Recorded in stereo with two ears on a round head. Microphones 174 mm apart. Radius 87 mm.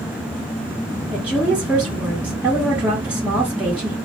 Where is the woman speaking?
5° right (ahead or behind), 1.0 m.